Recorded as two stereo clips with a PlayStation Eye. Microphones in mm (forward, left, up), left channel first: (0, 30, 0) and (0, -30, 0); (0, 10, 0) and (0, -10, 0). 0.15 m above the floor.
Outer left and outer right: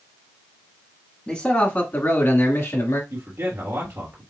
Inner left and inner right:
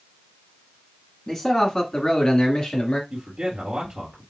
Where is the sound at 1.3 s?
20° left (ahead or behind), 1.4 m; by 3.0 s 50° left (ahead or behind), 2 m.